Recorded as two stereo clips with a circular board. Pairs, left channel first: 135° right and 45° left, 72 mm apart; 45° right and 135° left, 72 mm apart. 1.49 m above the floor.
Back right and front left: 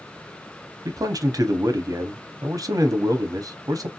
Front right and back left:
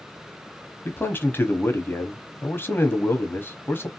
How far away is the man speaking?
About 0.7 m.